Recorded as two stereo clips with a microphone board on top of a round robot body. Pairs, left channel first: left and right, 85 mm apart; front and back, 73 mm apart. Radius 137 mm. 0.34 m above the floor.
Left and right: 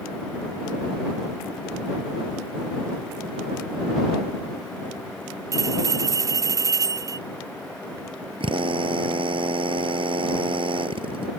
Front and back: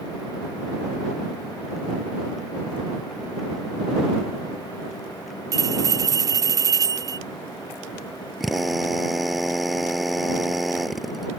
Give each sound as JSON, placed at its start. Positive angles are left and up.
{"t": 5.5, "sound": "a bell", "azimuth_deg": -140}
{"t": 8.4, "sound": "a drill", "azimuth_deg": -90}